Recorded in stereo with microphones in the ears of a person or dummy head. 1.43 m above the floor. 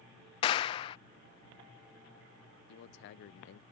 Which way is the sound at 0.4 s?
25° left (ahead or behind).